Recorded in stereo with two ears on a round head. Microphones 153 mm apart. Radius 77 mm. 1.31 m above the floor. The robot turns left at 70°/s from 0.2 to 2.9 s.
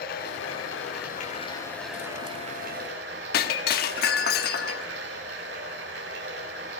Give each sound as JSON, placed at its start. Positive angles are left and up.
{"t": 0.0, "sound": "running water", "azimuth_deg": 120, "distance_m": 5.5}
{"t": 3.3, "sound": "breaking glass", "side_deg": 60, "distance_m": 1.2}